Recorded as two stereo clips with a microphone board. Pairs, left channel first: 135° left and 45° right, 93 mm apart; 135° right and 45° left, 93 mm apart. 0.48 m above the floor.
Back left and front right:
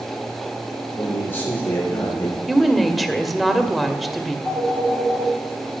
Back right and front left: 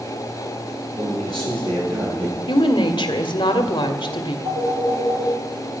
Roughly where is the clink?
No clink in this recording.